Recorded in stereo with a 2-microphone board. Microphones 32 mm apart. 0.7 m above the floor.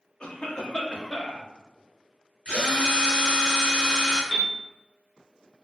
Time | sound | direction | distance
0.2 | a cough | 35° left (ahead or behind) | 0.7 m
2.5 | a drill | 45° left (ahead or behind) | 1.2 m
4.3 | a piano | 10° left (ahead or behind) | 0.8 m